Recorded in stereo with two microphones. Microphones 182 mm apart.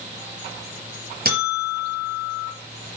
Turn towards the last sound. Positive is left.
turn(degrees=-55)  # may be behind; listen again after turning